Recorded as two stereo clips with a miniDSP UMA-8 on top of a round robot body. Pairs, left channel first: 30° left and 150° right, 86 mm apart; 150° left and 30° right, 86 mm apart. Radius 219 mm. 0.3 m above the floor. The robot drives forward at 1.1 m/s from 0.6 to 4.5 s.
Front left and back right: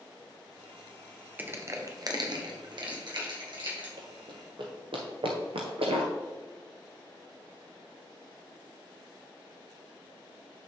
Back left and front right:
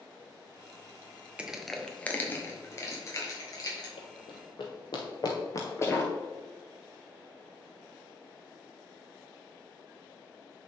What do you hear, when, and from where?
1.4 s crushing: 95° right, 1.2 m; by 3.9 s 165° right, 3 m
4.0 s running footsteps: 175° left, 0.9 m; by 6.1 s 135° right, 0.5 m